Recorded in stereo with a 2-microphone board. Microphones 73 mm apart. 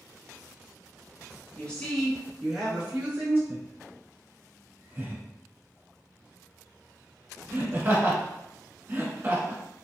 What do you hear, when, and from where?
1.6 s a woman speaking: 15° left (ahead or behind), 1.2 m; by 3.4 s 25° right (ahead or behind), 1.7 m
3.5 s laughter: 30° right (ahead or behind), 1.2 m